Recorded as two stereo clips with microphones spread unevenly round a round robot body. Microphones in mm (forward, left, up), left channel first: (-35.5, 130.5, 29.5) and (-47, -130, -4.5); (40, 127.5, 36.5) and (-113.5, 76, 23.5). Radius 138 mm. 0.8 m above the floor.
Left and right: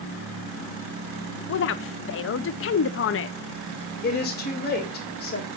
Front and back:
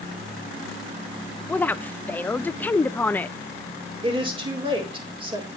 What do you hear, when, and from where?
1.5 s a woman speaking: 100° left, 0.5 m
4.0 s a woman speaking: 140° left, 4 m